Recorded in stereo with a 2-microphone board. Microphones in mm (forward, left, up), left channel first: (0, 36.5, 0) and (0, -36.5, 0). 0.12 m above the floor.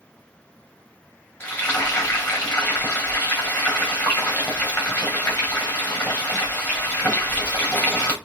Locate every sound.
1.4 s frying: 20° left (ahead or behind), 5 m